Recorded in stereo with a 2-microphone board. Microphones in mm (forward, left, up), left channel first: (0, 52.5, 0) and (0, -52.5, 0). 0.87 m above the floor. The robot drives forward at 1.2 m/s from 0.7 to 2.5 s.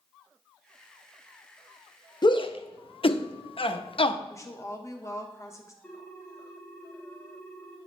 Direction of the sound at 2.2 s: 45° left (ahead or behind).